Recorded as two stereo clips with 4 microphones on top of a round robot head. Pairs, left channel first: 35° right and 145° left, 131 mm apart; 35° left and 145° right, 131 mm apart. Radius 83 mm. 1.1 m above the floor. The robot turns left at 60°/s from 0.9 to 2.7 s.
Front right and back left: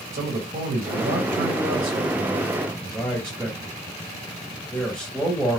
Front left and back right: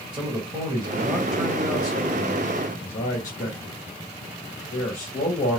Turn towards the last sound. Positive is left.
turn(degrees=60)